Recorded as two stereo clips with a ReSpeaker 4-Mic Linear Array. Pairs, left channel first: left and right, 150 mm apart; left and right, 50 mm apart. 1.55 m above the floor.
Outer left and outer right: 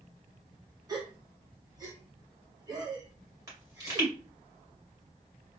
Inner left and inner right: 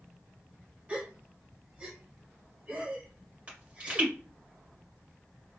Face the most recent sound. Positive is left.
turn(degrees=-25)  # may be behind; listen again after turning